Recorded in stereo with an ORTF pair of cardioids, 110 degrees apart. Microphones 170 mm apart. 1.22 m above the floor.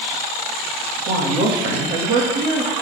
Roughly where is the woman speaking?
Ahead right.